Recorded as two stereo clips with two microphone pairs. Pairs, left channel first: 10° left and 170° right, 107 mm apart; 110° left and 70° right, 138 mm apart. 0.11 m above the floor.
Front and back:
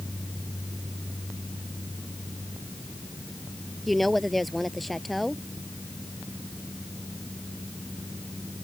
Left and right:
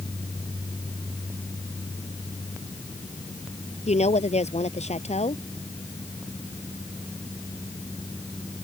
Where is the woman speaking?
95° left.